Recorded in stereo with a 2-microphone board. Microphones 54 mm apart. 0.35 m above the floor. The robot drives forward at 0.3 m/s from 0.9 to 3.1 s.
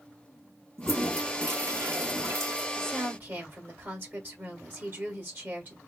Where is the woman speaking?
40° right (ahead or behind), 1.5 m.